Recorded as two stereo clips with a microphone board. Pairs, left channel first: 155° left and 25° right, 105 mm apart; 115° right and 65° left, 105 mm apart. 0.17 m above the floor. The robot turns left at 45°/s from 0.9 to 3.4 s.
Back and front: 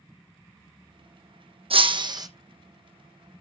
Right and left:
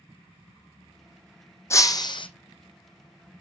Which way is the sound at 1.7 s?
50° right.